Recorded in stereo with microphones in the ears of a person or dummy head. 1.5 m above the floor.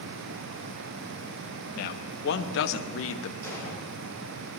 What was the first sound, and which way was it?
A man speaking, 55° left (ahead or behind).